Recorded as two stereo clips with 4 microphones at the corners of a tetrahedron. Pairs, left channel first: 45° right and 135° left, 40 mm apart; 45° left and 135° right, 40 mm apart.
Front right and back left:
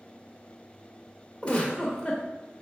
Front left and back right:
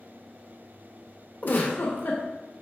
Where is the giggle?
15° left, 0.6 m.